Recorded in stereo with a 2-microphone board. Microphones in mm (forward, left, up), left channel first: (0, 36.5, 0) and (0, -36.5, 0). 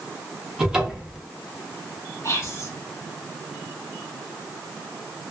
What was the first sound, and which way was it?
A cupboard door, 10° right (ahead or behind).